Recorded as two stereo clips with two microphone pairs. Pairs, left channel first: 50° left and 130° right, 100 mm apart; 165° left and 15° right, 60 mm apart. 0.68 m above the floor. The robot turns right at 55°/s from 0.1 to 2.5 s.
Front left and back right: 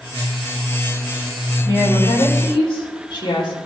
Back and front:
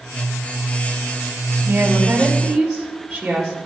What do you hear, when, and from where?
1.6 s a woman speaking: 25° left, 2 m; by 3.6 s 70° left, 2 m